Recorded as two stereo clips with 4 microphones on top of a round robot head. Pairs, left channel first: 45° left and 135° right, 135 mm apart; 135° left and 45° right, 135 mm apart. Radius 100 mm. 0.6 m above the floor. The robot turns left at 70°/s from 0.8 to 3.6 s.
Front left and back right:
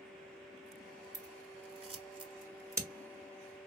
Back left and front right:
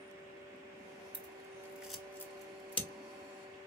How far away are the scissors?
About 1.5 m.